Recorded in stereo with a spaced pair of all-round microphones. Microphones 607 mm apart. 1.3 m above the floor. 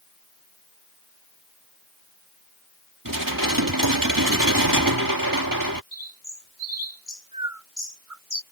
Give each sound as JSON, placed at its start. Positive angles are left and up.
{"t": 3.0, "sound": "dishes clattering", "side_deg": -35}
{"t": 5.9, "sound": "a bird", "side_deg": -70}